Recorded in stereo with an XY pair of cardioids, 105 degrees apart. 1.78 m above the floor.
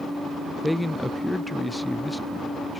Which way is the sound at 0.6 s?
5° left.